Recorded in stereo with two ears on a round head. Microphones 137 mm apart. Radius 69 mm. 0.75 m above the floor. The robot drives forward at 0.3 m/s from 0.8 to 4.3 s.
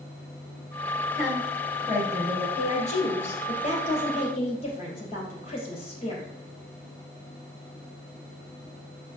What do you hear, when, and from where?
1.1 s a woman speaking: 15° left (ahead or behind), 2.5 m
2.6 s a woman speaking: 45° left (ahead or behind), 3 m; by 6.3 s 40° left (ahead or behind), 3.5 m